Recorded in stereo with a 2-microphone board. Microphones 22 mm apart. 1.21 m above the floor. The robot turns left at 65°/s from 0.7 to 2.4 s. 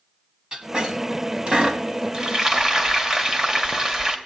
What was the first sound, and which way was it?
A squeak, 35° right (ahead or behind).